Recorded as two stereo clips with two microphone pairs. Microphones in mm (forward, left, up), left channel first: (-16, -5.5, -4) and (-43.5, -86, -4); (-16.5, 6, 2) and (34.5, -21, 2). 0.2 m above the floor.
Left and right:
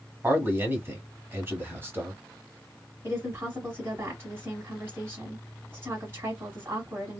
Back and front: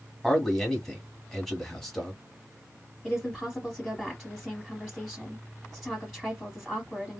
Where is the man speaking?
125° right, 1.2 m.